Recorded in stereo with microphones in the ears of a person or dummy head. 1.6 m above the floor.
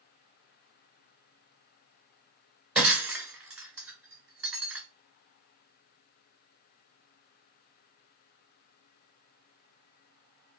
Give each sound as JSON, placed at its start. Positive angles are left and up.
{"t": 2.8, "sound": "breaking glass", "side_deg": -5, "distance_m": 2.5}